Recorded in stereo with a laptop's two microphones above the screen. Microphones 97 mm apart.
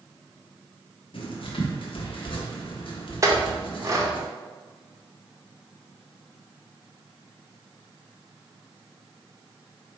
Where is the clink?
30° right (ahead or behind), 0.6 m.